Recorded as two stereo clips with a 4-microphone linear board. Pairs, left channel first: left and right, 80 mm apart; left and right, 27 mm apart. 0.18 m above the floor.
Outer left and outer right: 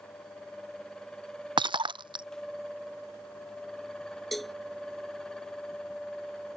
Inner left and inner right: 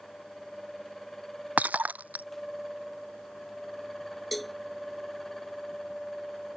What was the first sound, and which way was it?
Breaking glass, 80° right.